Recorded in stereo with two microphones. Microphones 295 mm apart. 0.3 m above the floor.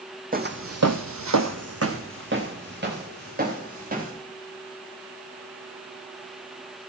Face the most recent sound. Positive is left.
turn(degrees=-30)  # may be behind; listen again after turning